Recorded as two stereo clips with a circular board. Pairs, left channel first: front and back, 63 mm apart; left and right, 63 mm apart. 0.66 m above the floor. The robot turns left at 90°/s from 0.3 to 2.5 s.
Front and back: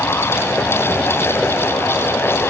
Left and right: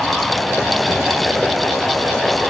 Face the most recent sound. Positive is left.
No sound to turn to.